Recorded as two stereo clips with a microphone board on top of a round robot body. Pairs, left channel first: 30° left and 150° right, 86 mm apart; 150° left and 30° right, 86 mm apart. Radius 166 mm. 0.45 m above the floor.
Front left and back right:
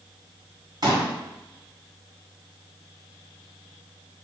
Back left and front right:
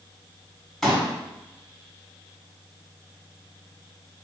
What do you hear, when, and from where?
0.8 s a pop: 125° right, 2 m